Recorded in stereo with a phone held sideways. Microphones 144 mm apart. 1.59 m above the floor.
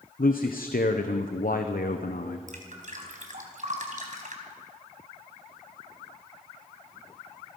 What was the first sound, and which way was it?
A man speaking, 80° left.